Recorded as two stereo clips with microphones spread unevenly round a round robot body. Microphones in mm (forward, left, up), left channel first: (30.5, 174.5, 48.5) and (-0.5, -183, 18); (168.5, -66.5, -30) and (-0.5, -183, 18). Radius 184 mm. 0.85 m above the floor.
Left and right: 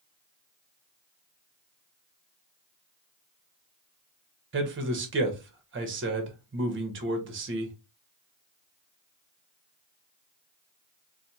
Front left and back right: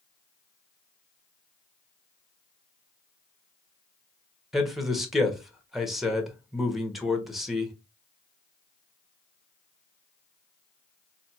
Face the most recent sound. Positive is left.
turn(degrees=-50)